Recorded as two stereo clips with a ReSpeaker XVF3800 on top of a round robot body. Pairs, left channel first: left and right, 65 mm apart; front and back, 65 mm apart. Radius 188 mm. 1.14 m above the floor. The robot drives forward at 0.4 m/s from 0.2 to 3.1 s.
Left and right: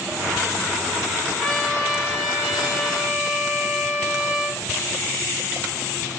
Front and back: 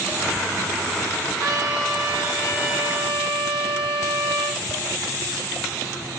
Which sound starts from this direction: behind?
A trumpet, at 1.4 s.